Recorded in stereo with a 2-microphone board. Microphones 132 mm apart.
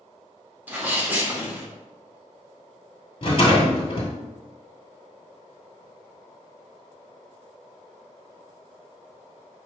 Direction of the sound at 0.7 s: 15° right (ahead or behind).